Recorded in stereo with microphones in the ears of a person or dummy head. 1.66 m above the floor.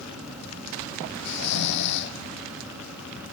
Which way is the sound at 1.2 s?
55° left (ahead or behind).